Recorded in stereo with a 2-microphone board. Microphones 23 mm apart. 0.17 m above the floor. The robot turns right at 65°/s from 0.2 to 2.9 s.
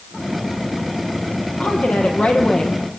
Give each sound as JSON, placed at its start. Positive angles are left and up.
{"t": 1.6, "sound": "a woman speaking", "azimuth_deg": 65, "distance_m": 6.0}